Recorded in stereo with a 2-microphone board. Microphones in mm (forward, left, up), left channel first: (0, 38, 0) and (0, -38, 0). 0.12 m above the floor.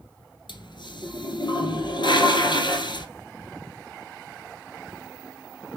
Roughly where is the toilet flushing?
Left.